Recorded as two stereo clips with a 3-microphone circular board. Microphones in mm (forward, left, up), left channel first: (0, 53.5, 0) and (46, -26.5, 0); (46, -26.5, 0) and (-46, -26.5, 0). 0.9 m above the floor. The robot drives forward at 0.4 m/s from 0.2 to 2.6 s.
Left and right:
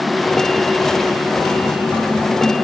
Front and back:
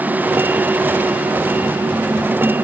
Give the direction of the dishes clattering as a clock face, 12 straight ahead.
No dishes clattering in this recording.